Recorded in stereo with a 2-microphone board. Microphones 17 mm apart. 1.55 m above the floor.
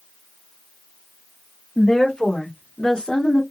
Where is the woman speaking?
40° left (ahead or behind), 1.9 m; by 3.4 s 50° left (ahead or behind), 0.9 m.